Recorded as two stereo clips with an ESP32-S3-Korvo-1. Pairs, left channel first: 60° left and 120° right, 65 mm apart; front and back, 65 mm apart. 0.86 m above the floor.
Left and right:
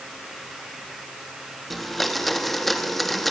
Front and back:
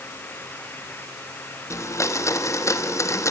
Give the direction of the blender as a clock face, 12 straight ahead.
1 o'clock.